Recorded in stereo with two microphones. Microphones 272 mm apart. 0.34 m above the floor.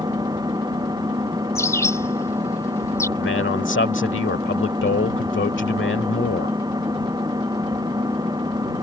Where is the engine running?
15° right (ahead or behind).